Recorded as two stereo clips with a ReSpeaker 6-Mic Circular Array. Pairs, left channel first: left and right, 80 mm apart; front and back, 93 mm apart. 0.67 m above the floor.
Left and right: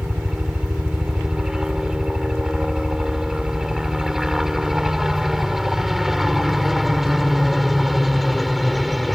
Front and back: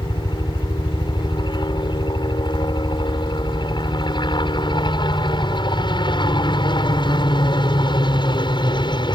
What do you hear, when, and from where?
0.0 s a helicopter: 10° right; by 9.2 s straight ahead